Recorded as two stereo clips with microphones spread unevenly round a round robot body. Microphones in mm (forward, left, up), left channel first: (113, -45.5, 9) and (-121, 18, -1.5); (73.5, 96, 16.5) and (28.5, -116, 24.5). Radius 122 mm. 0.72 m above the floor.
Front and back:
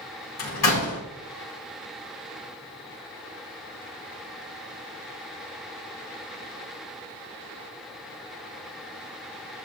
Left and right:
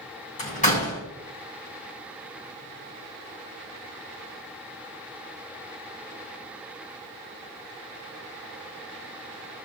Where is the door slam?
20° left, 4 m.